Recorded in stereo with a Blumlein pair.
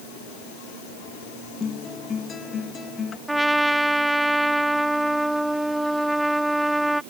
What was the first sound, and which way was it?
A guitar, 20° left.